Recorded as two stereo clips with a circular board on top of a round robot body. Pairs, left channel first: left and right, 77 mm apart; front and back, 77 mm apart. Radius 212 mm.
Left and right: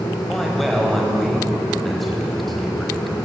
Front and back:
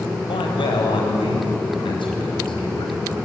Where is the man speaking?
Straight ahead, 4.5 m.